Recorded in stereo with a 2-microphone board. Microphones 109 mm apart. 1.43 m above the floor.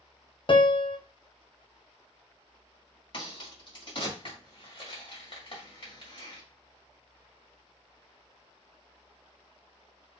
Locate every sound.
0.5 s a piano: 45° left (ahead or behind), 0.5 m
3.1 s a crack: 50° left (ahead or behind), 1.7 m